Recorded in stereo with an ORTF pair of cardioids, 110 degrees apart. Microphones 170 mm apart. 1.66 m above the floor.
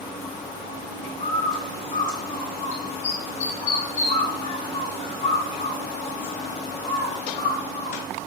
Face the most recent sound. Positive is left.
turn(degrees=50)